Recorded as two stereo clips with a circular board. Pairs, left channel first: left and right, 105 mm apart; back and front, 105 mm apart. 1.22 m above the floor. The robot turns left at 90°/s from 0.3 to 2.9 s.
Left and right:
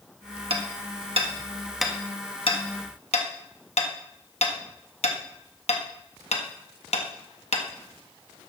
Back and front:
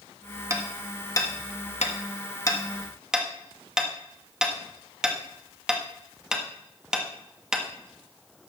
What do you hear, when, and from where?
0.5 s hammering: 60° right, 1.5 m; by 7.7 s 85° left, 1.5 m